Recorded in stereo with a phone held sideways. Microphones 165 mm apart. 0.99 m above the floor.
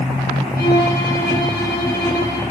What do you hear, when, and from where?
0.6 s a violin: 85° left, 3 m